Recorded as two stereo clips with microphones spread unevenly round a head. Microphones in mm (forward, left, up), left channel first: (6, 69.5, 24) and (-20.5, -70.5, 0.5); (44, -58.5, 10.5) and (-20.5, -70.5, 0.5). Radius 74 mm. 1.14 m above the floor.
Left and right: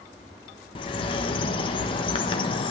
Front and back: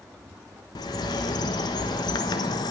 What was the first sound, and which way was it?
A bird, 20° left.